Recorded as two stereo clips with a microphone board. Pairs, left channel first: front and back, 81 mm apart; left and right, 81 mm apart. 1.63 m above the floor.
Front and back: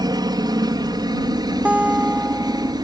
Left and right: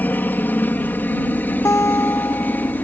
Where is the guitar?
115° left.